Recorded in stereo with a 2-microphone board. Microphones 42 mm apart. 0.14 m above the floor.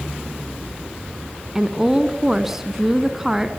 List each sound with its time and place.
1.6 s a woman speaking: 10° right (ahead or behind), 1.2 m